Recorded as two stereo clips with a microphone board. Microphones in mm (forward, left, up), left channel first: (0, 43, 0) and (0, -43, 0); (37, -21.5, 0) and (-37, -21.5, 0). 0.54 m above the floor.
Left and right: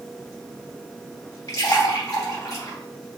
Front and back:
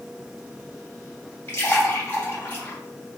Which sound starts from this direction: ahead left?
A splash, at 1.5 s.